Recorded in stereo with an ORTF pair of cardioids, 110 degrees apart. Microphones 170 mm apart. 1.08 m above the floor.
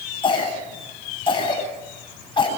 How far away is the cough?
About 9 m.